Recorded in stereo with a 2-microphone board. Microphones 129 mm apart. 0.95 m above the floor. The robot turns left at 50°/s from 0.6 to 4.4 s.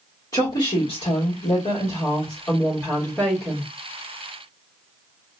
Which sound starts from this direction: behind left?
A woman speaking, at 0.3 s.